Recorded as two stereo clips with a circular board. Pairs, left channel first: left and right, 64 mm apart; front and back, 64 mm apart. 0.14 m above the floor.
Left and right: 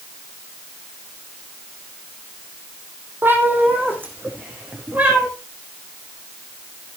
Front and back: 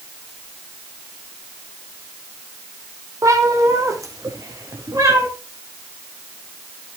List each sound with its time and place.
3.2 s a cat meowing: 150° right, 2.5 m